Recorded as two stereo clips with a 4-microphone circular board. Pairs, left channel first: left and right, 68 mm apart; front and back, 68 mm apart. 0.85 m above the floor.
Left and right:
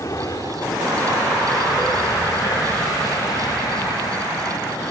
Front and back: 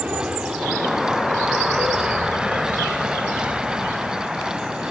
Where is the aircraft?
110° left; by 4.9 s 105° left.